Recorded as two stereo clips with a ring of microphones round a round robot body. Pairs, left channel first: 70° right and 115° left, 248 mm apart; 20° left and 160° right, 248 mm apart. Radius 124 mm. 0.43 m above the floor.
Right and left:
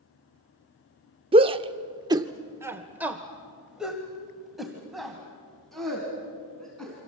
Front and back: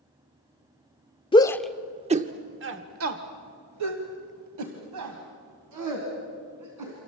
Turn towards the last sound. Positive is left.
turn(degrees=-155)